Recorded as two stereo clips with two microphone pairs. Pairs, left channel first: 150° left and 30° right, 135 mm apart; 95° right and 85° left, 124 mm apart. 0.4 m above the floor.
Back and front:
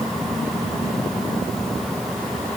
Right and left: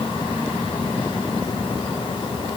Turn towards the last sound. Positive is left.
No sound to turn to.